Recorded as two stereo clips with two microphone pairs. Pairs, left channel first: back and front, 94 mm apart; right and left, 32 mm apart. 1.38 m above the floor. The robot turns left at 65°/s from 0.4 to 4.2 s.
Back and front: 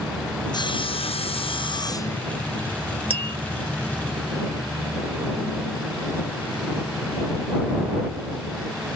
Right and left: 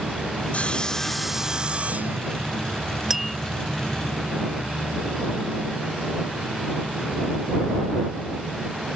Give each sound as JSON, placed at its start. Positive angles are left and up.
{"t": 0.5, "sound": "sawing", "azimuth_deg": -135}
{"t": 3.1, "sound": "tapping", "azimuth_deg": 15}